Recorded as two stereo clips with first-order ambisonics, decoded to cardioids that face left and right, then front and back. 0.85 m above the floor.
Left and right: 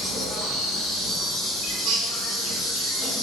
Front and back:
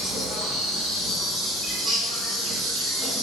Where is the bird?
95° right, 0.5 m.